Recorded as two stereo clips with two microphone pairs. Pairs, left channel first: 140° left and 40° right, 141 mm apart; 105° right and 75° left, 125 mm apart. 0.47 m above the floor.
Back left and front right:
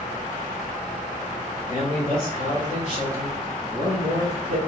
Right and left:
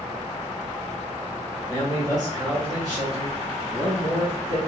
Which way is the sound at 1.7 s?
135° left.